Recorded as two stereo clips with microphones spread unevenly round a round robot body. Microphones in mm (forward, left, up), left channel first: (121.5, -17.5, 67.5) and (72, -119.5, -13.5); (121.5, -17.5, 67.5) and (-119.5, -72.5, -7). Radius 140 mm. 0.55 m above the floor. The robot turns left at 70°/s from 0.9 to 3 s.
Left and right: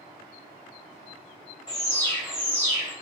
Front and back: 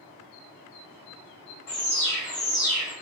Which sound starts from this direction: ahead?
An alarm, at 1.7 s.